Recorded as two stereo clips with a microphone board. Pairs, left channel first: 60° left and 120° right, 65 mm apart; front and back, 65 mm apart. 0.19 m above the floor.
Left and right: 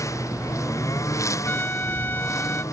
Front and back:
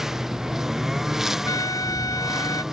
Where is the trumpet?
5° left.